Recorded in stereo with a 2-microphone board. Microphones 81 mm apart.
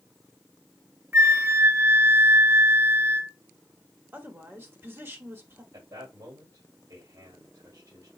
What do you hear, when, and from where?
1.1 s a flute: 35° right (ahead or behind), 0.5 m
4.1 s a woman speaking: 30° right (ahead or behind), 1.4 m
5.7 s a man speaking: 55° right (ahead or behind), 2.5 m